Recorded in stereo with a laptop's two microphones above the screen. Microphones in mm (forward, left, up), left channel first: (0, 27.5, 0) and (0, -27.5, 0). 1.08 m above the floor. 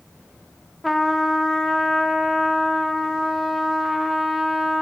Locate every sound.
0.8 s a trumpet: centre (ahead or behind), 0.6 m